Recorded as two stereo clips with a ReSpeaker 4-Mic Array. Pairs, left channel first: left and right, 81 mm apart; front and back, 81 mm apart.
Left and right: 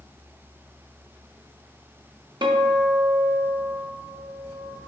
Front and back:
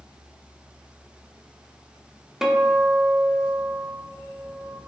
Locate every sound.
2.4 s a guitar: 95° right, 0.5 m